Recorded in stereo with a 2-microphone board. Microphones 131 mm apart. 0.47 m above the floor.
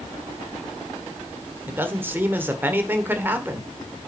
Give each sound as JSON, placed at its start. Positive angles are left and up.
{"t": 1.7, "sound": "a man speaking", "side_deg": -15, "distance_m": 1.1}